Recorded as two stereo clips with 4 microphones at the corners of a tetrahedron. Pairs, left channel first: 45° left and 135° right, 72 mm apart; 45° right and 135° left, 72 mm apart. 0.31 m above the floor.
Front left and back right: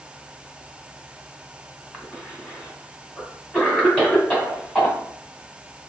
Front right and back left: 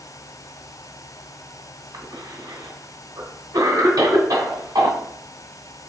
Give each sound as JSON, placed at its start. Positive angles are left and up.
{"t": 1.9, "sound": "a cough", "azimuth_deg": 115, "distance_m": 2.5}